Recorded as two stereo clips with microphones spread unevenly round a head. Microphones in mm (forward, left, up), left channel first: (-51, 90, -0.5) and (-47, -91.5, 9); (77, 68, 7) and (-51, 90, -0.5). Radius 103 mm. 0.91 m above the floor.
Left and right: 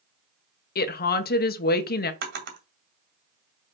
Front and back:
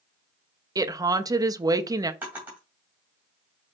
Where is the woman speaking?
115° left, 0.9 m.